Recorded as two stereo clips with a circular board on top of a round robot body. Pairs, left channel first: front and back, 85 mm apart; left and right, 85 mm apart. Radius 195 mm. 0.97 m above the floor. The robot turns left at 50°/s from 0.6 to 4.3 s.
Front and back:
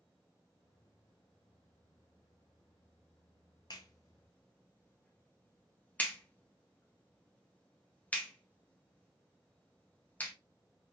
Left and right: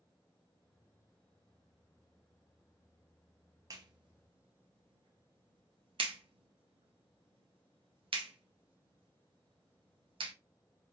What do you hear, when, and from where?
3.7 s a clap: 40° right, 0.6 m; by 10.3 s 70° right, 0.6 m